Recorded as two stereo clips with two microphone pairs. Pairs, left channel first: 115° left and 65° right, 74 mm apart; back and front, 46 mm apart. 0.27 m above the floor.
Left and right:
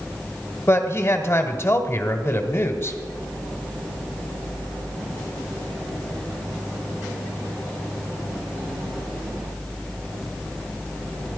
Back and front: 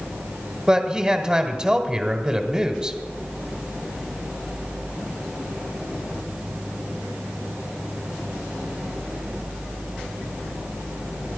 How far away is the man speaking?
About 1.4 m.